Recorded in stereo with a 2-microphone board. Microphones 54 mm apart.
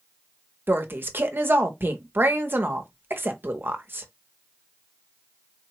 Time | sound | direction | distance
0.7 | a woman speaking | 45° right (ahead or behind) | 0.7 m